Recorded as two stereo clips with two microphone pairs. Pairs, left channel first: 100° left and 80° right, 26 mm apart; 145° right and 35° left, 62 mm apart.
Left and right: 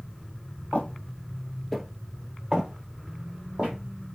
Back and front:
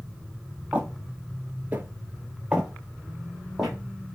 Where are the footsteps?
100° left, 0.9 m; by 3.8 s 50° right, 1.7 m.